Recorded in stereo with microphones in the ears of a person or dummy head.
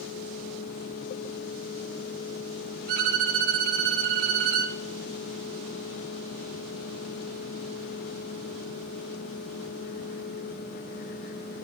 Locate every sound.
2.9 s a violin: 40° right (ahead or behind), 1.5 m